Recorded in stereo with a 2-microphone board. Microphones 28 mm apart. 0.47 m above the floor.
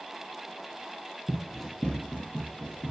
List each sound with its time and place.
1.3 s running footsteps: 15° right (ahead or behind), 0.6 m; by 2.9 s 75° left (ahead or behind), 1.4 m